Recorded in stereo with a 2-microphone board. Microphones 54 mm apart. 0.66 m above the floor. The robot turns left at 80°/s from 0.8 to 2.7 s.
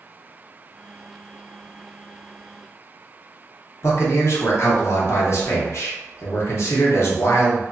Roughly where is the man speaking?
Left.